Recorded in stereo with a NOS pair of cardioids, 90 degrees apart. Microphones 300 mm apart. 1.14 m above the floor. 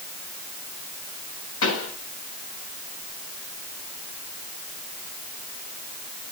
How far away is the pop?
About 7.5 m.